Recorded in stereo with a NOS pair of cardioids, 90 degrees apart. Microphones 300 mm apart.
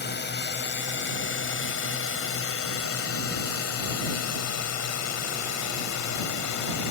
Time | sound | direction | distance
0.0 | a drone | 35° left | ?